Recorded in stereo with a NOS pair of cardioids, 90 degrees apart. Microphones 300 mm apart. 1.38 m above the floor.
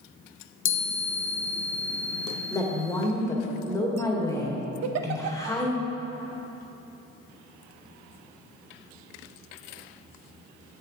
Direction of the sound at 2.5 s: 10° left.